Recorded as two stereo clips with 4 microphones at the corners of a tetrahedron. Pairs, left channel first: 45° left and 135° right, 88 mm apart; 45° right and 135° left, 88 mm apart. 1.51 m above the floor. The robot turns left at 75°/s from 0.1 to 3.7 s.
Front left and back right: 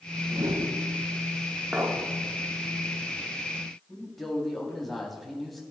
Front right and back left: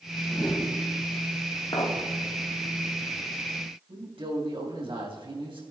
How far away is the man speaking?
About 3.5 m.